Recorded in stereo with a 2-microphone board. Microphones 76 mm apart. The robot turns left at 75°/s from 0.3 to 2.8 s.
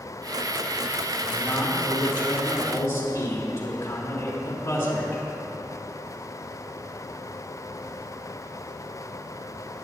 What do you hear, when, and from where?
1.2 s a man speaking: 155° left, 4 m; by 5.2 s 35° left, 4 m